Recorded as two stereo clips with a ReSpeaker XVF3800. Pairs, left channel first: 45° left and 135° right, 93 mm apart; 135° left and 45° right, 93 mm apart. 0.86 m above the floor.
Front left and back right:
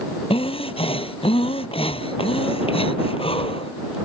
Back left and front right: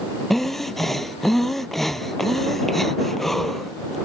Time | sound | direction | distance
0.3 | breathing | 45° left | ?